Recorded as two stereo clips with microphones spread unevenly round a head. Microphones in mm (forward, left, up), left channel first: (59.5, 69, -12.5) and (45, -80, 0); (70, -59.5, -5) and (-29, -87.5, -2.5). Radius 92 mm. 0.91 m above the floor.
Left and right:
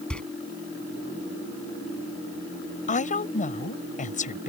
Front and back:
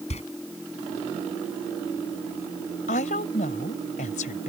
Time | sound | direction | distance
0.1 | a door slam | straight ahead | ?
2.9 | a woman speaking | 45° left | ?